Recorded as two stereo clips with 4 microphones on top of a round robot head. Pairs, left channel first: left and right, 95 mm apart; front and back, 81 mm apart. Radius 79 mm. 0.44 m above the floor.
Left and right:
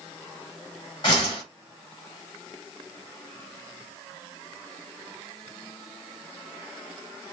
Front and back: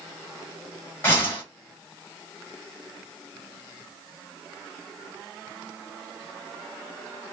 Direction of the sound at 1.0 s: 60° left.